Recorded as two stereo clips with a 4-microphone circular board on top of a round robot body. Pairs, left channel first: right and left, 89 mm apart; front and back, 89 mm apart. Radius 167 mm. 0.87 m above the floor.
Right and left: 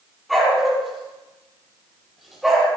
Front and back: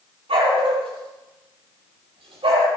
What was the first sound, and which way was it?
A dog barking, straight behind.